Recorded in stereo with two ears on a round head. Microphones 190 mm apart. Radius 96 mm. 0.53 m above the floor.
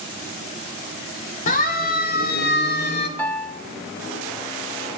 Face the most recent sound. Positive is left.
turn(degrees=5)  # may be behind; listen again after turning